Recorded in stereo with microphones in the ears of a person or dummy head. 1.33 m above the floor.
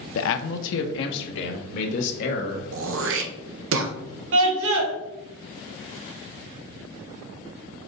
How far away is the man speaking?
About 0.6 m.